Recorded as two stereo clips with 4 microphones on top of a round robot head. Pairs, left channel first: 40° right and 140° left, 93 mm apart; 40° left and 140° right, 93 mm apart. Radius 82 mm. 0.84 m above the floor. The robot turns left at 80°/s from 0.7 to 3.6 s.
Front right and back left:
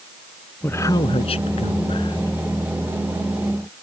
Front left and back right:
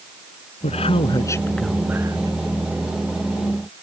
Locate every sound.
0.6 s a man speaking: 30° left; by 2.3 s 100° right